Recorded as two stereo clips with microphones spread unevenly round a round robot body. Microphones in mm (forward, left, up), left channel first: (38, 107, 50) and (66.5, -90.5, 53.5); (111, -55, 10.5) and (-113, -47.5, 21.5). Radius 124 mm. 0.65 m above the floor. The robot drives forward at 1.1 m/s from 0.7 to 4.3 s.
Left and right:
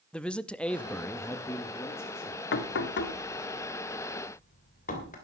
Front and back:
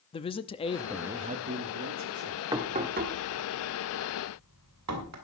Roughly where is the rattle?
No rattle in this recording.